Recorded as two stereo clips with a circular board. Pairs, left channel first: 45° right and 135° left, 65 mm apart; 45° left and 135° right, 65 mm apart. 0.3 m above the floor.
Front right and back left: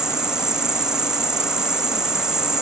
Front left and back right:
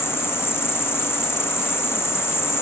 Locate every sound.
0.0 s an insect: 60° left